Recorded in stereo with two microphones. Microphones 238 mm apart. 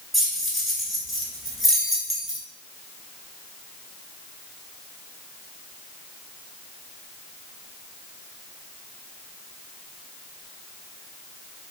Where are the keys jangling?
Centre (ahead or behind), 0.7 m.